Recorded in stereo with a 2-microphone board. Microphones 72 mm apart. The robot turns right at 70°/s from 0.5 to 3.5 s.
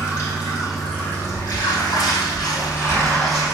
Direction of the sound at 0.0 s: 20° right.